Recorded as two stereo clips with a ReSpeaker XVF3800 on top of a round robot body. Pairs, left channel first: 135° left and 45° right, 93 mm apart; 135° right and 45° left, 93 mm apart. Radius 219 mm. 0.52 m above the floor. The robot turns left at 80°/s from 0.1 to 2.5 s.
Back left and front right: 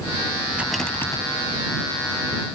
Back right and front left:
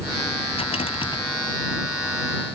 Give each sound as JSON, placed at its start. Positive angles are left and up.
{"t": 0.5, "sound": "a rattle", "azimuth_deg": -120}